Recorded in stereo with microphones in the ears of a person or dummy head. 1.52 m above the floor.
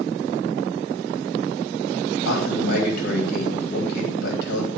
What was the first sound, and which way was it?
A man speaking, 60° left (ahead or behind).